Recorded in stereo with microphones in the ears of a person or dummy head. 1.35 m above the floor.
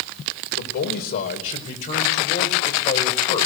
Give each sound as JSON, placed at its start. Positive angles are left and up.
{"t": 0.5, "sound": "a man speaking", "side_deg": 45, "distance_m": 4.5}